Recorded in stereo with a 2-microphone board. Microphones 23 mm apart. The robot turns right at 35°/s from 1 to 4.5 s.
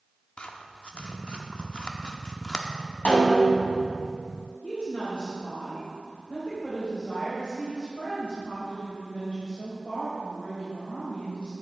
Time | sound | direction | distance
0.4 | scissors | 45° left (ahead or behind) | 0.8 m
3.0 | a snare drum | 70° left (ahead or behind) | 2.5 m
4.6 | a woman speaking | 50° left (ahead or behind) | 3 m